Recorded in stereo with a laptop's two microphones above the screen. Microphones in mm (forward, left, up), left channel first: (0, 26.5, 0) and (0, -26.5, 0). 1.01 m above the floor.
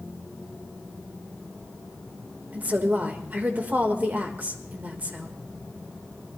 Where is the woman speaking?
30° right (ahead or behind), 1.4 m.